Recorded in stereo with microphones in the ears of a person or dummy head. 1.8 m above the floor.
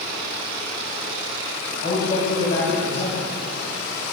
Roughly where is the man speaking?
Left.